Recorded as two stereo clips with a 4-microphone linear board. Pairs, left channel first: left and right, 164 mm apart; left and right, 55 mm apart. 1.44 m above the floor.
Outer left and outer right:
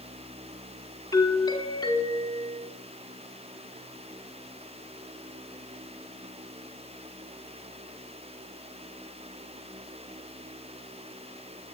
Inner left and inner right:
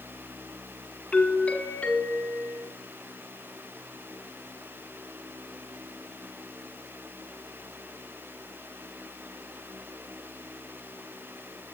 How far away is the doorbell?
About 5 m.